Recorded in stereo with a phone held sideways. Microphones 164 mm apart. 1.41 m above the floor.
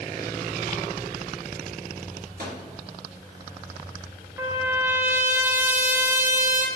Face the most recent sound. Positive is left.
turn(degrees=-15)  # may be behind; listen again after turning